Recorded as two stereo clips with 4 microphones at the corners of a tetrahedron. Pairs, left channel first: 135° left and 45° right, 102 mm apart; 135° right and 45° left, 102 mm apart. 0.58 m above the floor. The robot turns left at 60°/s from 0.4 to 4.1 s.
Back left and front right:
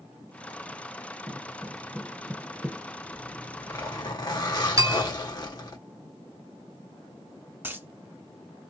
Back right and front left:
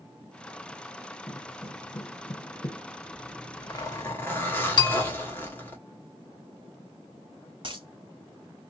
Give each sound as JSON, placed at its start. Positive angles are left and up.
{"t": 1.3, "sound": "footsteps", "azimuth_deg": -90, "distance_m": 1.1}
{"t": 3.1, "sound": "a zipper", "azimuth_deg": -140, "distance_m": 1.3}
{"t": 4.8, "sound": "a bell", "azimuth_deg": -95, "distance_m": 1.1}
{"t": 7.6, "sound": "a dropped coin", "azimuth_deg": 20, "distance_m": 0.7}